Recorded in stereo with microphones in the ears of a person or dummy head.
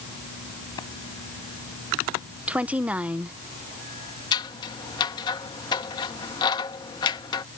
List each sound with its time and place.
0.8 s a clap: 25° left (ahead or behind)
2.5 s a woman speaking: 5° right (ahead or behind)
4.3 s scissors: 25° left (ahead or behind)